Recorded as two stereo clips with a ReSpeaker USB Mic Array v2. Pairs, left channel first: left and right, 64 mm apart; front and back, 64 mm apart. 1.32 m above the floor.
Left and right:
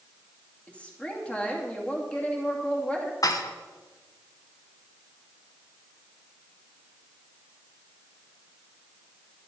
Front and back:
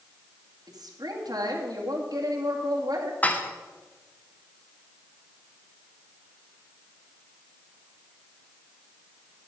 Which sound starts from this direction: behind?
A woman speaking, at 0.7 s.